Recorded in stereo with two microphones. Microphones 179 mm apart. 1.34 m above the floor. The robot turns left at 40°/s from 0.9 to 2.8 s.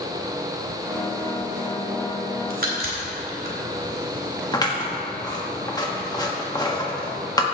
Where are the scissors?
25° left (ahead or behind), 1.5 m.